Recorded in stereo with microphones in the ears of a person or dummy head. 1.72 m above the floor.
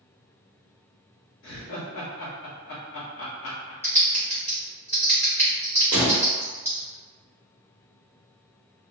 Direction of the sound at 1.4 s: 60° left (ahead or behind).